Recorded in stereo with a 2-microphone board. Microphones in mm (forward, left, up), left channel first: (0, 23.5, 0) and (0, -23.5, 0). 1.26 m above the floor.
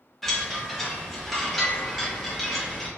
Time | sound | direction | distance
0.2 | a chime | 5° left (ahead or behind) | 0.7 m